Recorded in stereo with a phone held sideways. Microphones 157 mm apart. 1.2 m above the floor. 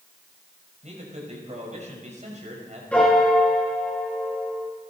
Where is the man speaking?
50° right (ahead or behind), 5.5 m.